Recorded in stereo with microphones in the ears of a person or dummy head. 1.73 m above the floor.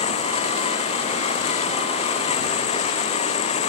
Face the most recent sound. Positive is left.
turn(degrees=35)  # may be behind; listen again after turning